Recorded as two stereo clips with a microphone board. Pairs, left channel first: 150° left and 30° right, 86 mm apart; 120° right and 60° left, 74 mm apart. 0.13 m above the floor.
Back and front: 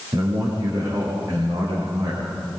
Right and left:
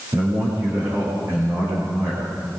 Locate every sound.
0.1 s a man speaking: 20° left, 9.5 m